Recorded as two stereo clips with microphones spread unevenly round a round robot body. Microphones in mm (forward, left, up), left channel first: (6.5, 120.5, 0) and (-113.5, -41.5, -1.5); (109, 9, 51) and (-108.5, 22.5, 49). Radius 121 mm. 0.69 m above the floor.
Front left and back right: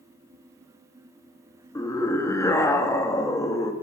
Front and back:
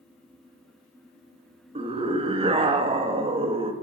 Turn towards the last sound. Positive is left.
turn(degrees=125)